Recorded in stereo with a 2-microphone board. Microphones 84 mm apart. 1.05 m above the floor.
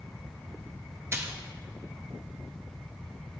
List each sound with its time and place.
1.1 s a splash: 30° right (ahead or behind), 0.6 m